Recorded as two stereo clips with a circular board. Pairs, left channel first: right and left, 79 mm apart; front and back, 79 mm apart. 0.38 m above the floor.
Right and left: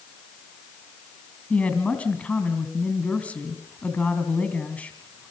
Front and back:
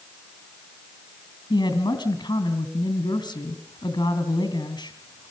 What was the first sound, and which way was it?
A woman speaking, 15° right.